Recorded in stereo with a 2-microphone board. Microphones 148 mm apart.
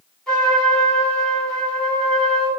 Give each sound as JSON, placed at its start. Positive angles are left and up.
{"t": 0.3, "sound": "a trumpet", "side_deg": 5, "distance_m": 1.4}